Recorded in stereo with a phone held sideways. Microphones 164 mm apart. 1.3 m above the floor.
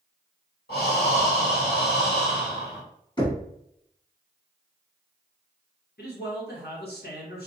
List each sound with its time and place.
0.7 s breathing: 80° left, 1.7 m
3.2 s knocking: 25° left (ahead or behind), 1.3 m
6.0 s a man speaking: 80° left, 1.0 m